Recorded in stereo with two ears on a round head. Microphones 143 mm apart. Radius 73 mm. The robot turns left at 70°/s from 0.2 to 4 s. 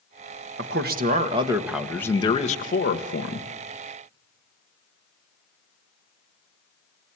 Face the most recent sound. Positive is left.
turn(degrees=30)